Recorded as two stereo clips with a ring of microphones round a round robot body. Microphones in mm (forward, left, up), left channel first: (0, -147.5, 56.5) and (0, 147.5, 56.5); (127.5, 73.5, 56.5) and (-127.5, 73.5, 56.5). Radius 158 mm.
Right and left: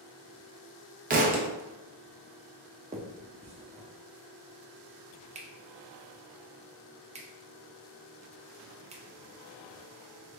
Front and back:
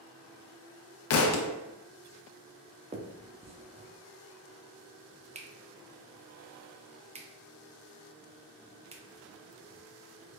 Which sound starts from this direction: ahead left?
A thud, at 1.1 s.